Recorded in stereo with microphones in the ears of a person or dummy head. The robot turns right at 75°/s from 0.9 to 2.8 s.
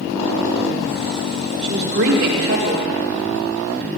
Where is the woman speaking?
150° right, 1.9 m; by 3.0 s 60° right, 1.9 m.